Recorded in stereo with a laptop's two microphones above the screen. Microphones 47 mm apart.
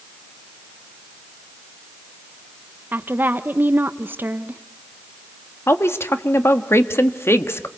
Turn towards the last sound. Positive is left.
turn(degrees=70)  # may be behind; listen again after turning